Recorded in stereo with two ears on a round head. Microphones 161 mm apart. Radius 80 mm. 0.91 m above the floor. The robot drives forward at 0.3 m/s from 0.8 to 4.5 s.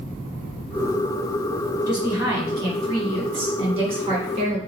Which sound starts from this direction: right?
A woman speaking, at 1.9 s.